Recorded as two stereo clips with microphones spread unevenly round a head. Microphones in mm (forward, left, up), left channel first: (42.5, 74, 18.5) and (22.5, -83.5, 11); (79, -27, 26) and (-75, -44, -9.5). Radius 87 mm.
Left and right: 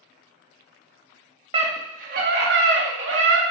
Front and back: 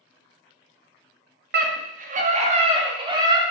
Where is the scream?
160° right, 2.0 m; by 3.4 s 110° right, 3 m.